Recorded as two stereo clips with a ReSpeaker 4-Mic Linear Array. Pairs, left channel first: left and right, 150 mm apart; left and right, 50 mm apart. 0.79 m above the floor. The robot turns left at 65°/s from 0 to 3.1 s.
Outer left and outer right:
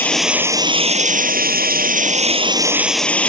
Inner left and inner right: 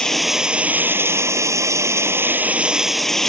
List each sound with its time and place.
0.0 s running water: 15° left; by 3.3 s 170° left